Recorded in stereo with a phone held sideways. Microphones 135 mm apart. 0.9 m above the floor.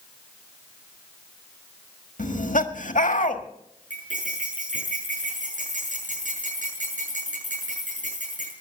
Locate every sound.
2.2 s laughter: 75° left (ahead or behind), 1.6 m
3.9 s cutlery clinking: 70° right (ahead or behind), 7 m